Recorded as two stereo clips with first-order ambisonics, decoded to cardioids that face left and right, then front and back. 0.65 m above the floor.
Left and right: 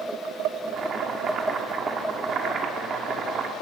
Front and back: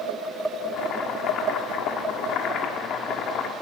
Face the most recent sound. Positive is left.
turn(degrees=-40)